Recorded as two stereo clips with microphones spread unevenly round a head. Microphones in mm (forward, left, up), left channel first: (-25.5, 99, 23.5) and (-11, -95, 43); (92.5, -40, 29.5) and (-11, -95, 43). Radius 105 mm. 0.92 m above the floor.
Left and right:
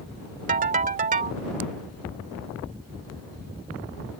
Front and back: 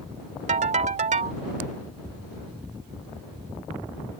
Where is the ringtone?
135° right.